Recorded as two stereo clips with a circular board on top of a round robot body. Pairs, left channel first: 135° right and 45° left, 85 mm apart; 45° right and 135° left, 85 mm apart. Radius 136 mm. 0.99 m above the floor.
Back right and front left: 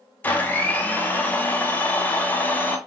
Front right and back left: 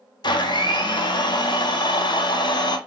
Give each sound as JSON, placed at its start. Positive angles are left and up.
{"t": 0.2, "sound": "a blender", "azimuth_deg": -65, "distance_m": 0.7}